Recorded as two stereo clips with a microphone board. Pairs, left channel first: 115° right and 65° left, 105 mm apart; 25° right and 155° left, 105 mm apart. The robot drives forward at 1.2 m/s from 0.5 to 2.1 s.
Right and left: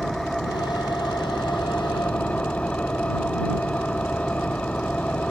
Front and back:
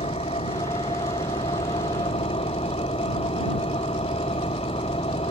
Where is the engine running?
25° right; by 5.3 s 35° right.